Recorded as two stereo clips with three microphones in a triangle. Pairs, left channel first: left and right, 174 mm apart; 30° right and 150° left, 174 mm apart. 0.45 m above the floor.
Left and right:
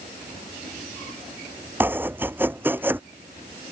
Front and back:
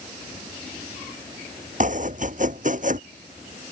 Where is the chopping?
170° right.